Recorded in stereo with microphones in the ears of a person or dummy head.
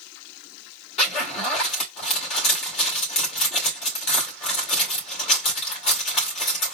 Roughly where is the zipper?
Left.